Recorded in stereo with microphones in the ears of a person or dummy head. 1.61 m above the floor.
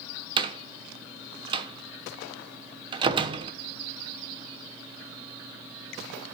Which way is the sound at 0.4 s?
30° right (ahead or behind).